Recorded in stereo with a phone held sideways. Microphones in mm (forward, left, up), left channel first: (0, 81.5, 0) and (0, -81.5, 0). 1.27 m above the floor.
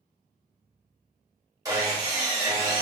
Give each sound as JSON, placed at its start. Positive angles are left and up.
{"t": 1.6, "sound": "sawing", "side_deg": -20, "distance_m": 1.1}